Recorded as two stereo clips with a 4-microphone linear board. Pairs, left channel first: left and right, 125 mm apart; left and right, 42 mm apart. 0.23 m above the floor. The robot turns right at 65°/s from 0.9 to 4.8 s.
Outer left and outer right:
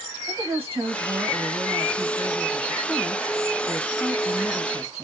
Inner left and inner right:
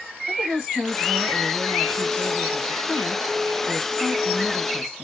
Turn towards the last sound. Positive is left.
turn(degrees=-5)  # may be behind; listen again after turning